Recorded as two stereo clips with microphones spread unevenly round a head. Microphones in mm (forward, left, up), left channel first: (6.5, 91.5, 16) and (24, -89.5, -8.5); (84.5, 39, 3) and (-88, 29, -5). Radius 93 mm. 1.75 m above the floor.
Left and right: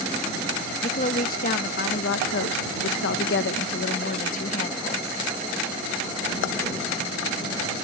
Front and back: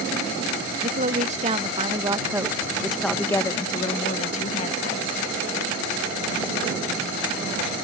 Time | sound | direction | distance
0.8 | a woman speaking | 145° left | ?